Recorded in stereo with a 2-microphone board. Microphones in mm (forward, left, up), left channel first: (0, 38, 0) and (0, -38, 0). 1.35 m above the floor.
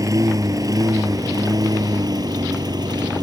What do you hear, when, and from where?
0.0 s a lawn mower: 50° right (ahead or behind); by 3.2 s 65° right (ahead or behind)